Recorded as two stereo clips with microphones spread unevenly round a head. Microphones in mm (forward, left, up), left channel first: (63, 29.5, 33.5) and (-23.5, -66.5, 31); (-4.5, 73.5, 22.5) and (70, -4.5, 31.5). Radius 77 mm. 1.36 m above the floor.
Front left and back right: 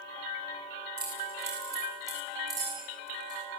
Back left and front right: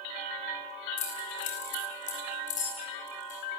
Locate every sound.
1.0 s keys jangling: 155° left, 9 m; by 3.4 s 165° left, 10 m